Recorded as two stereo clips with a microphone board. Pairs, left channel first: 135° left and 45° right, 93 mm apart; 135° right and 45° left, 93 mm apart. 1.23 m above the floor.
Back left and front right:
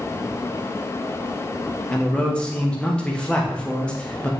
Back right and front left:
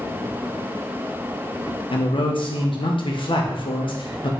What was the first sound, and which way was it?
A man speaking, 145° right.